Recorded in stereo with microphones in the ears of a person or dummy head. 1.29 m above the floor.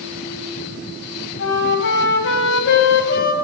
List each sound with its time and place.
1.4 s a flute: 65° left (ahead or behind), 4 m